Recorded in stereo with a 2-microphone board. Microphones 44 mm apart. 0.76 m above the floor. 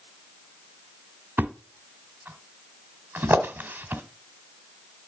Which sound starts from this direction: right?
A thud, at 1.4 s.